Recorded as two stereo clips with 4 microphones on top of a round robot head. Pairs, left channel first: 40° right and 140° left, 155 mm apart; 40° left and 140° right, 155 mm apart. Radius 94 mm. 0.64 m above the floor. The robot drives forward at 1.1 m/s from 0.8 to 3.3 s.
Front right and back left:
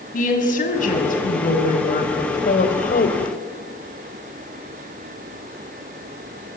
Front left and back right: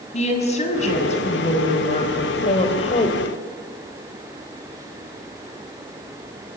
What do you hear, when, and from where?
0.1 s a woman speaking: 5° right, 6 m; by 3.4 s 10° right, 3 m